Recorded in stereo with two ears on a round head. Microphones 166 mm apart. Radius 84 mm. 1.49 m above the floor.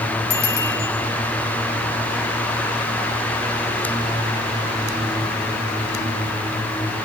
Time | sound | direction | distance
0.3 | a bicycle bell | 60° left (ahead or behind) | 7 m